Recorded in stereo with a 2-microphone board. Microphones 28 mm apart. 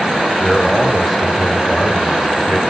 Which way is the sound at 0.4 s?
10° left (ahead or behind).